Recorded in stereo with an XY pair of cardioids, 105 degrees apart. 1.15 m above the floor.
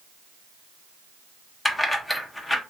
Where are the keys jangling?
20° left, 0.8 m.